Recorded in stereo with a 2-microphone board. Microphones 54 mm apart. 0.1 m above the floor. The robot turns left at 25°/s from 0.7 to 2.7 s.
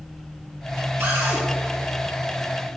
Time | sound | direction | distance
1.0 | a cupboard door | 50° right (ahead or behind) | 2.5 m